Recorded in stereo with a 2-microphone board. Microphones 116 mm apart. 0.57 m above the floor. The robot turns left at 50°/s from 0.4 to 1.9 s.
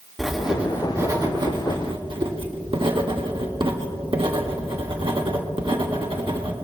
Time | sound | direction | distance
0.2 | writing | 5° right | 1.4 m